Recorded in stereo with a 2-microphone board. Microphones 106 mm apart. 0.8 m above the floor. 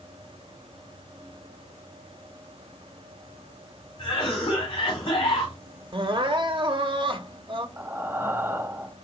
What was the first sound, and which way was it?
A cough, 55° left (ahead or behind).